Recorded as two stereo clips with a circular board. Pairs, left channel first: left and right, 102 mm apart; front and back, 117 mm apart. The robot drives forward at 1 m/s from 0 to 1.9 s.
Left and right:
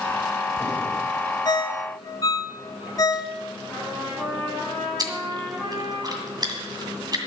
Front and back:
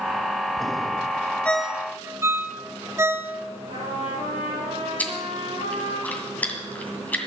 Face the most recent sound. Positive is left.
turn(degrees=-70)